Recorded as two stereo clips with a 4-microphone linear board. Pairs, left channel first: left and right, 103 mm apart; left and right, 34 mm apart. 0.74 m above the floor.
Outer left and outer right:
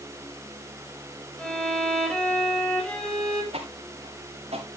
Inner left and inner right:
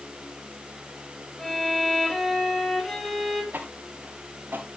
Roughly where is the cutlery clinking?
I don't hear cutlery clinking.